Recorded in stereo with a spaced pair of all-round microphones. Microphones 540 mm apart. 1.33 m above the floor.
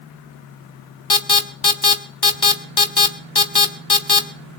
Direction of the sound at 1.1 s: 45° left (ahead or behind).